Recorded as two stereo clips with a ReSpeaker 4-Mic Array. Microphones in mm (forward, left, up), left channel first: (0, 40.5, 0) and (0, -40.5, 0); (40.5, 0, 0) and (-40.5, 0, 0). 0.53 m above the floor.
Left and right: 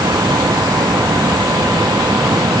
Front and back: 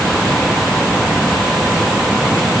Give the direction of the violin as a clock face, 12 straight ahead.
No violin in this recording.